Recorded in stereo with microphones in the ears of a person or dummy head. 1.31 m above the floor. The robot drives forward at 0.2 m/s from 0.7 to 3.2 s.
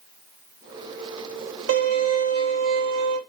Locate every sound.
1.7 s a violin: 85° right, 1.0 m; by 3.2 s 70° right (ahead or behind), 1.0 m